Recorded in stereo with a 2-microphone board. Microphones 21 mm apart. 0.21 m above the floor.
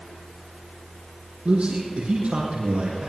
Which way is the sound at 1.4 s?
80° right.